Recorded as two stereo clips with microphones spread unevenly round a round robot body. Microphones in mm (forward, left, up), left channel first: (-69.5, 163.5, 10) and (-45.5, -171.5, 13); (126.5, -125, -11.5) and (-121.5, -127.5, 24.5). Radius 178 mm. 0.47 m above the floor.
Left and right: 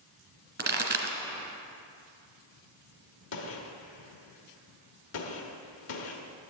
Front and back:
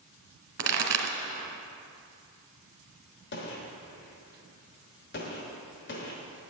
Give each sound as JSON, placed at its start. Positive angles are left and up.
{"t": 0.6, "sound": "a pop", "azimuth_deg": -150, "distance_m": 1.7}
{"t": 3.3, "sound": "a gunshot", "azimuth_deg": 45, "distance_m": 0.9}